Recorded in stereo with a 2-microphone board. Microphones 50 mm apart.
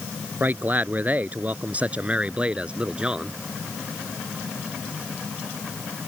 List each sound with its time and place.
0.4 s a man speaking: 35° right (ahead or behind); by 3.4 s 15° right (ahead or behind)